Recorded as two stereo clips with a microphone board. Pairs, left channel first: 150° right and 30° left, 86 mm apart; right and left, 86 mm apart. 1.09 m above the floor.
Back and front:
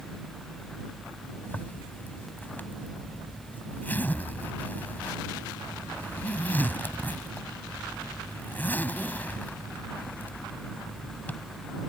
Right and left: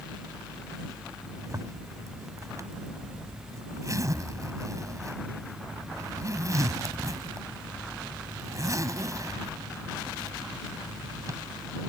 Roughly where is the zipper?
Behind left.